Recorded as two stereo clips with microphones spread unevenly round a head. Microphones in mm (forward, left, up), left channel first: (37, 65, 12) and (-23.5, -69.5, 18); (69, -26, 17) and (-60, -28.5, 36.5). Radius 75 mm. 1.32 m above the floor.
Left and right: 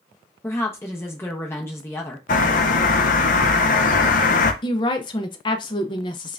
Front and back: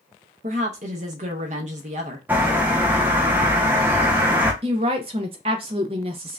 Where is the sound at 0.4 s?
140° left, 0.8 m.